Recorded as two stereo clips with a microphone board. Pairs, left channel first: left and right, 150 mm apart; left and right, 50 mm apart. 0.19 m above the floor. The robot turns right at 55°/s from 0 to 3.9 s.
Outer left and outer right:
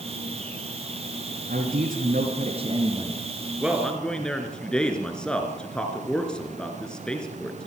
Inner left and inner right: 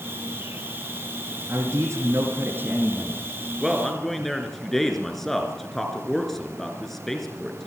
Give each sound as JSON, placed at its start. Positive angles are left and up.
{"t": 1.5, "sound": "a man speaking", "azimuth_deg": -110, "distance_m": 3.0}
{"t": 3.6, "sound": "a man speaking", "side_deg": -10, "distance_m": 2.5}